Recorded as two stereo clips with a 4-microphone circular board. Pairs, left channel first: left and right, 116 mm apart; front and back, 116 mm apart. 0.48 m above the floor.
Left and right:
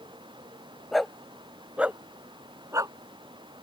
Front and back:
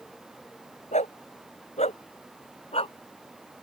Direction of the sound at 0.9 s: Straight ahead.